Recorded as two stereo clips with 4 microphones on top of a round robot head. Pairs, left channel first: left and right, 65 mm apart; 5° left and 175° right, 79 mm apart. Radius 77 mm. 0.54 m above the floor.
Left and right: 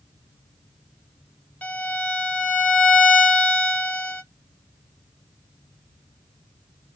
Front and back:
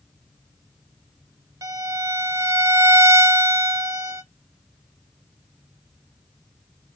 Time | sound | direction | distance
1.6 | a violin | 150° left | 1.1 m